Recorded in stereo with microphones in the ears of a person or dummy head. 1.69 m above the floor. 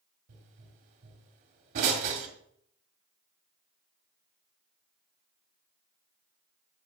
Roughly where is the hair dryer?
No hair dryer in this recording.